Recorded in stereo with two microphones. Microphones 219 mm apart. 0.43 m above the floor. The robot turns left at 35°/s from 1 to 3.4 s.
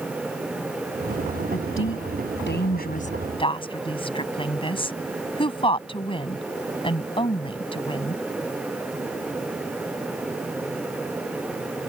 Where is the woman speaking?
70° left (ahead or behind); by 8.2 s 25° left (ahead or behind).